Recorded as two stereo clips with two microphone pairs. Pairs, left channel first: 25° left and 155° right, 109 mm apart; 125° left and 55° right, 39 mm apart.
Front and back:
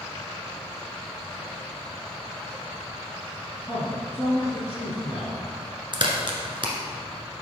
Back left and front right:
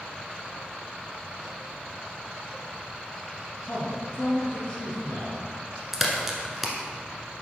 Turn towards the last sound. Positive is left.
turn(degrees=-135)